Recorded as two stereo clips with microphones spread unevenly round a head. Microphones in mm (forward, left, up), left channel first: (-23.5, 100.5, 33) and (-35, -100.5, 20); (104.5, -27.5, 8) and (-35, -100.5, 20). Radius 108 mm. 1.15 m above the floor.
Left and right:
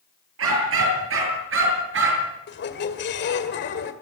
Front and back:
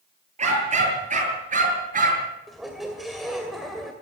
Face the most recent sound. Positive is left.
turn(degrees=120)